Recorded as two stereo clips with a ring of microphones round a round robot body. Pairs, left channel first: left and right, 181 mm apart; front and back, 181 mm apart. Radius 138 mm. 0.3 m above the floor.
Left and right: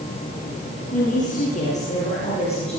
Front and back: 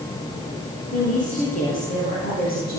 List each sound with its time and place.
0.9 s a woman speaking: 45° left, 9.5 m; by 2.8 s 35° left, 9.5 m